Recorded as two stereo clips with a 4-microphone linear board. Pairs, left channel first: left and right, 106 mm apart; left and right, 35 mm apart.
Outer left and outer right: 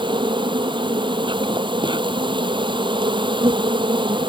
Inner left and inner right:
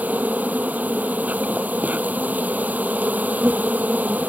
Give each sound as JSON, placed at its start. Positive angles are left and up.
{"t": 0.0, "sound": "an insect", "side_deg": -45}